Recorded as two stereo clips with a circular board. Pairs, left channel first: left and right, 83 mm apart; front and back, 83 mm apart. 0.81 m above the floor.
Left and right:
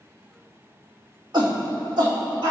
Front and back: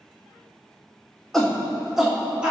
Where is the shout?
85° right, 1.9 m; by 2.5 s 105° right, 2.5 m.